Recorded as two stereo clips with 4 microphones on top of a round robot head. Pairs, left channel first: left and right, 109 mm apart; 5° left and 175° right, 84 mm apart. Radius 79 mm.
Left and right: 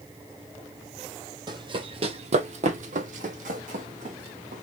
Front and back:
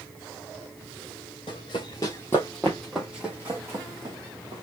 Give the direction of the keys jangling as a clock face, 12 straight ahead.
No keys jangling in this recording.